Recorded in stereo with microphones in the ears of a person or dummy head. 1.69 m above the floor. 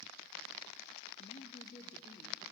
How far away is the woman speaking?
About 0.8 m.